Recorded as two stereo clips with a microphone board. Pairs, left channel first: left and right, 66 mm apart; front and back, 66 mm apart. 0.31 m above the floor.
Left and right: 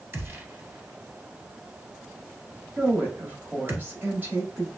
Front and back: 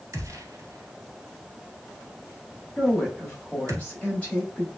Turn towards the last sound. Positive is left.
turn(degrees=-50)